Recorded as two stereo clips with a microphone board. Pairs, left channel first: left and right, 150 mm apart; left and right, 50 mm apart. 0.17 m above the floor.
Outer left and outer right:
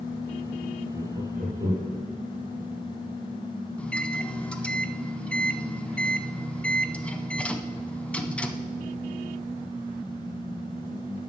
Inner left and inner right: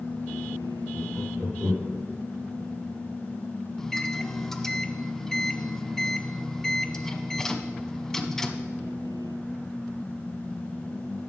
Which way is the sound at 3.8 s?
10° left (ahead or behind).